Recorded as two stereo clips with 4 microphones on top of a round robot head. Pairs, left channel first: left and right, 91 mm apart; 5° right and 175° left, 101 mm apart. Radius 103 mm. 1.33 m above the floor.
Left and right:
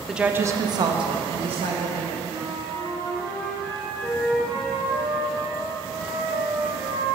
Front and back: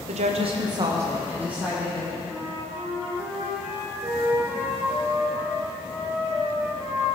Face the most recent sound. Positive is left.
turn(degrees=-115)